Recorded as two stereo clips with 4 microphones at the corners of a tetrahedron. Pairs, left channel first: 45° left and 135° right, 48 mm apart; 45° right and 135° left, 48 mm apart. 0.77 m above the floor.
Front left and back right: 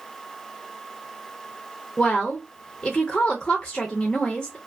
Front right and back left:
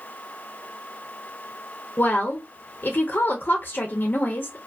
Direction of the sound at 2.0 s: 25° right.